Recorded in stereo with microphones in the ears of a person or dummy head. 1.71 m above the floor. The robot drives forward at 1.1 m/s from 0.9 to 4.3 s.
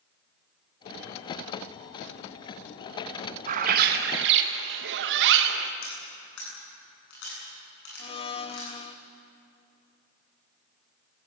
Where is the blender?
35° left (ahead or behind), 0.9 m.